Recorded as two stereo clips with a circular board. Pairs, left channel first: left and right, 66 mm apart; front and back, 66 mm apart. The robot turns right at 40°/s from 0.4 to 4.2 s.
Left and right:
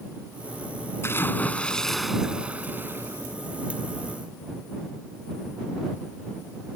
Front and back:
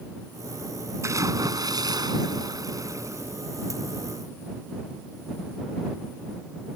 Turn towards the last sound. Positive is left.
turn(degrees=-95)